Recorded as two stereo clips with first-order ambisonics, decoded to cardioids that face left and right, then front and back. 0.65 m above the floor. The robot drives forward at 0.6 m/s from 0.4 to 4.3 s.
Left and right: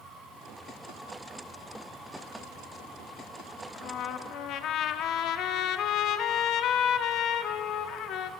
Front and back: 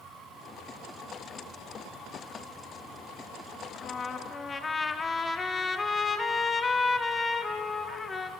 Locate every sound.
3.7 s a trumpet: 50° left, 1.3 m; by 8.3 s 70° left, 1.2 m